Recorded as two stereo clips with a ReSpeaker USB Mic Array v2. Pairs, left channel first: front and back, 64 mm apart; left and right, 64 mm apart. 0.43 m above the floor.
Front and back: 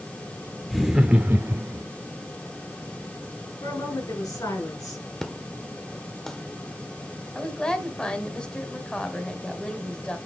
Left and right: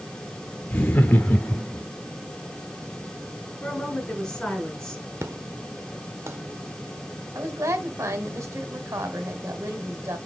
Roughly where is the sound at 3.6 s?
Ahead.